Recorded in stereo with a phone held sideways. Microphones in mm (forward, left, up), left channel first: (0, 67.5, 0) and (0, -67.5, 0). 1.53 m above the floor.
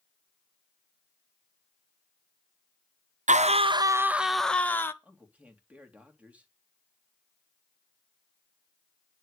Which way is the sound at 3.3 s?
65° right (ahead or behind).